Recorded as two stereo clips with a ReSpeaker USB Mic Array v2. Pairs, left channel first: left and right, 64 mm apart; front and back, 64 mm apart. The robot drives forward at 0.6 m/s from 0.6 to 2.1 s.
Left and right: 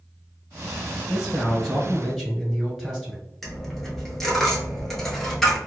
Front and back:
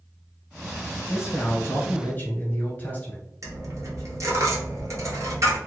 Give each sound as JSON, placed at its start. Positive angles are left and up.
{"t": 1.1, "sound": "a man speaking", "azimuth_deg": 0, "distance_m": 1.5}
{"t": 3.4, "sound": "a dropped coin", "azimuth_deg": 170, "distance_m": 0.9}